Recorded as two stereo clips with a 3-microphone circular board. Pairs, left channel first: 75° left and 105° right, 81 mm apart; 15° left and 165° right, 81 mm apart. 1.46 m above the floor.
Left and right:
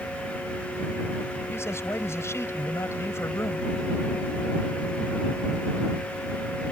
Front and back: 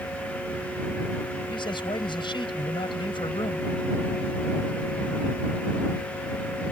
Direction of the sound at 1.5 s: 20° left.